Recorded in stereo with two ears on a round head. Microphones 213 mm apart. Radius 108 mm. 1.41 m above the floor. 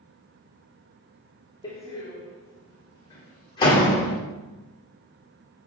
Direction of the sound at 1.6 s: 15° left (ahead or behind).